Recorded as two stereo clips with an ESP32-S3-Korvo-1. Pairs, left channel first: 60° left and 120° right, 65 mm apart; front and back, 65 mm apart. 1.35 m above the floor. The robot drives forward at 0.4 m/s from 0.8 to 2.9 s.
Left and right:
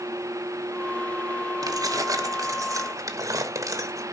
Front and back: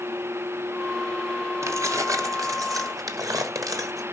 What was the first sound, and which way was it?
Keys jangling, 140° right.